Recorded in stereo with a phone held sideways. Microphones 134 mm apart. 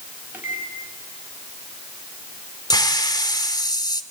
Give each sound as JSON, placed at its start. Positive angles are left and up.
{"t": 0.3, "sound": "a microwave", "side_deg": -15, "distance_m": 5.5}
{"t": 2.7, "sound": "a hiss", "side_deg": 30, "distance_m": 1.4}